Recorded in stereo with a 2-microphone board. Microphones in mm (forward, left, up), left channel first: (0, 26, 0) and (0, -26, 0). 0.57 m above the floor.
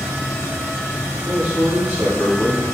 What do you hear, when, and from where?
1.2 s a man speaking: 40° right (ahead or behind), 2.0 m